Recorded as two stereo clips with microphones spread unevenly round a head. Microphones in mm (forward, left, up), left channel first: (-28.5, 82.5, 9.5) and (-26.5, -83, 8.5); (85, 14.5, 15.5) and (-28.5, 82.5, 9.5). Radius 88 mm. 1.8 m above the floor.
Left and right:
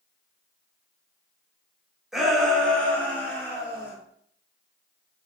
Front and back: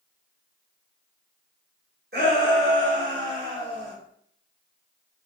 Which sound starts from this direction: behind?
A shout, at 2.1 s.